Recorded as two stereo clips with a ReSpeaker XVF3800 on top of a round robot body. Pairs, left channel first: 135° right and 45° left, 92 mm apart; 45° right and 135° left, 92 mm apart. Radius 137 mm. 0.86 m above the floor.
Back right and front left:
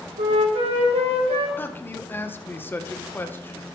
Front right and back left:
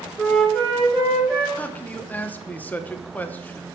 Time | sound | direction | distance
0.2 | a flute | 35° left | 1.8 m
1.6 | a man speaking | 95° right | 0.9 m